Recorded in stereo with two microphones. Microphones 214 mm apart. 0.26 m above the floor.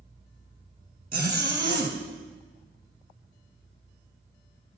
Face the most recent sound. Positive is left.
turn(degrees=-45)  # may be behind; listen again after turning